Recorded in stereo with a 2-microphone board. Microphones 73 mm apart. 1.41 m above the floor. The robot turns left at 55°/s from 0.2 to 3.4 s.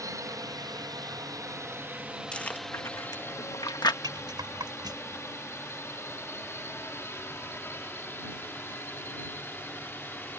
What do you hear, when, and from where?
0.0 s a drone: 50° right (ahead or behind); by 10.4 s 30° left (ahead or behind)
2.3 s chewing: 15° left (ahead or behind); by 3.9 s 70° left (ahead or behind)
4.0 s a rattle: 70° right (ahead or behind)